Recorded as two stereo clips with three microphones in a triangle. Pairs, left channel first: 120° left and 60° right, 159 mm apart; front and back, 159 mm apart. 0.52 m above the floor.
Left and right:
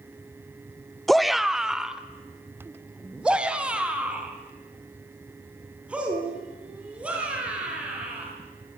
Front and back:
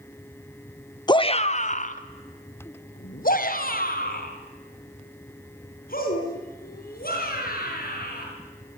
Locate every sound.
1.1 s a shout: 30° left, 0.7 m; by 8.2 s 20° left, 8 m